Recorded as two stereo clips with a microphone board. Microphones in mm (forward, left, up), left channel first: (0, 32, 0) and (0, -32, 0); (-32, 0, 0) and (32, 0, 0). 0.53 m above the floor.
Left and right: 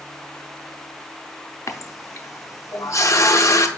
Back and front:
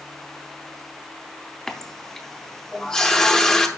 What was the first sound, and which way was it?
A running tap, 105° left.